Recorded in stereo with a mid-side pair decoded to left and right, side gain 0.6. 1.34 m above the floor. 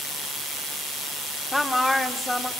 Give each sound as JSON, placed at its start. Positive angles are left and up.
{"t": 1.5, "sound": "a woman speaking", "azimuth_deg": 10, "distance_m": 4.0}